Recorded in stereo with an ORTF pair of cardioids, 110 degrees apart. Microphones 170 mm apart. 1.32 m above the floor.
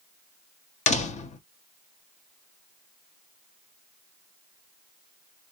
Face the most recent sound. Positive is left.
turn(degrees=45)